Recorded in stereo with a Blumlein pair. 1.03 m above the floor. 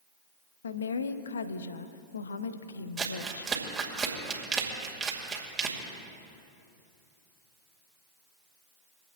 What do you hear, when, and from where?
0.6 s a woman speaking: 70° left, 0.8 m
3.0 s crumpling: 15° right, 2.5 m